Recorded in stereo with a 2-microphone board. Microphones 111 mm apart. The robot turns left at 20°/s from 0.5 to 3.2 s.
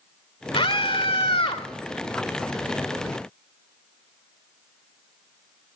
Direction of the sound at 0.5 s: 55° left (ahead or behind).